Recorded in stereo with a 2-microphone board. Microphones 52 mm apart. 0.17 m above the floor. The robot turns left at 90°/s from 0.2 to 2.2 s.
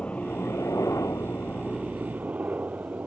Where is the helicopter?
25° left (ahead or behind); by 3.1 s 30° right (ahead or behind).